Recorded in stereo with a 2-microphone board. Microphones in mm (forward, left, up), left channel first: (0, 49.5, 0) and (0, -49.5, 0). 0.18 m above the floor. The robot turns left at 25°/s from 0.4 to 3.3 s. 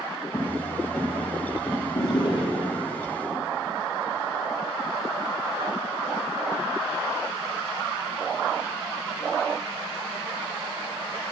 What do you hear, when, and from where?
0.3 s footsteps: 20° right (ahead or behind), 4 m; by 1.9 s 25° left (ahead or behind), 5 m
1.9 s a drawer: 40° left (ahead or behind), 3 m; by 2.8 s 60° left (ahead or behind), 3 m